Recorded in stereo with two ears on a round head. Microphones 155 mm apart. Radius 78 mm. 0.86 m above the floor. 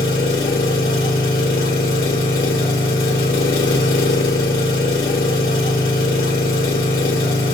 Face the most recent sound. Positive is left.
turn(degrees=55)  # may be behind; listen again after turning